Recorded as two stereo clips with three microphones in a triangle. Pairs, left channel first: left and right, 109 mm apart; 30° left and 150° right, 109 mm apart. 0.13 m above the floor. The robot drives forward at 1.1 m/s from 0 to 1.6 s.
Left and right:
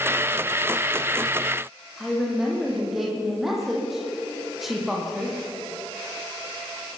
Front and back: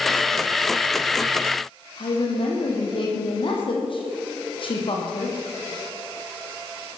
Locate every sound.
2.0 s a woman speaking: straight ahead, 6 m